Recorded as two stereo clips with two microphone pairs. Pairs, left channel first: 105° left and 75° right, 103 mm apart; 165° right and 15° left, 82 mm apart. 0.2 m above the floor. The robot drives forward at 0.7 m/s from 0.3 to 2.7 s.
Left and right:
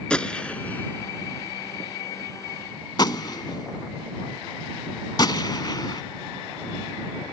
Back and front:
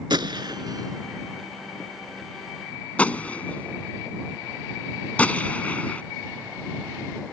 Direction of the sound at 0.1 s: 25° left.